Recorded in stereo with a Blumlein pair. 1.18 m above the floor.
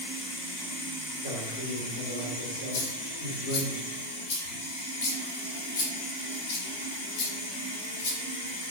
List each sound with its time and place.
0.0 s running water: 65° left, 2.5 m
1.2 s a man speaking: 60° left, 2.5 m
2.7 s a dropped coin: 55° left, 1.3 m